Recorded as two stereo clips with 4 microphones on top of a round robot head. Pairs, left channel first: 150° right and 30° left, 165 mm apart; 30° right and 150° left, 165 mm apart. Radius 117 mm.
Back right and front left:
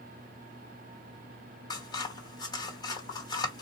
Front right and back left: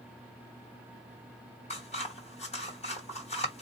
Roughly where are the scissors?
Right.